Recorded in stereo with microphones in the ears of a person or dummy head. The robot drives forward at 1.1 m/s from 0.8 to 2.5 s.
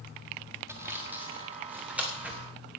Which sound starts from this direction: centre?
Sawing, at 0.7 s.